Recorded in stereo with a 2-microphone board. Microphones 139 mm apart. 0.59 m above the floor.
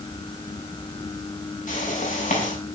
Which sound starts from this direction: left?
A whoosh, at 1.7 s.